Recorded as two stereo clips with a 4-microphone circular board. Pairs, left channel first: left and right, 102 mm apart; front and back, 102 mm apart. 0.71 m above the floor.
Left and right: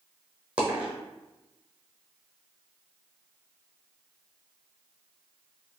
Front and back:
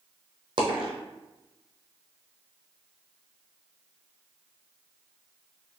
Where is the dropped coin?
165° right, 1.2 m.